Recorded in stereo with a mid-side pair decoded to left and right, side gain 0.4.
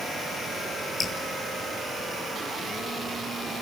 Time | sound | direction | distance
1.0 | dripping | 45° left | 8.5 m